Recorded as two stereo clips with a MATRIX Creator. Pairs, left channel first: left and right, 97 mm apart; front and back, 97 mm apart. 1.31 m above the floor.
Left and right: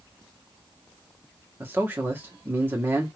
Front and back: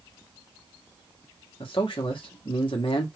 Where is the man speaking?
25° right, 1.6 m.